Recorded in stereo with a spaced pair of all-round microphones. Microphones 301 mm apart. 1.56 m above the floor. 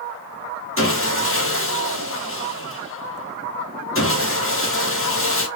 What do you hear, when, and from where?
0.8 s sawing: 40° left (ahead or behind), 1.2 m